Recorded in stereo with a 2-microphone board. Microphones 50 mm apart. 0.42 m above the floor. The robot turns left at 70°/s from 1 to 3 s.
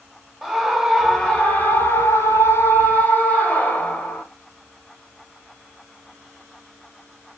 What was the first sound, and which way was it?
A scream, 175° right.